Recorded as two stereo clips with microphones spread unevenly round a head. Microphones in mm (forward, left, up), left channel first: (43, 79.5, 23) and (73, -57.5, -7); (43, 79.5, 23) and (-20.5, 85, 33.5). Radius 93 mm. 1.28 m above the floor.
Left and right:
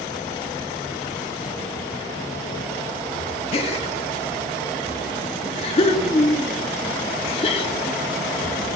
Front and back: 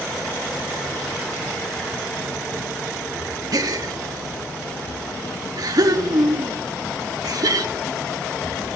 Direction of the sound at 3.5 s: 165° left.